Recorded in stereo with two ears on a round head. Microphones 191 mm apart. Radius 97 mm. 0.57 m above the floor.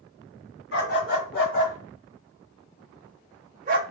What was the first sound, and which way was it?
A dog barking, 50° left (ahead or behind).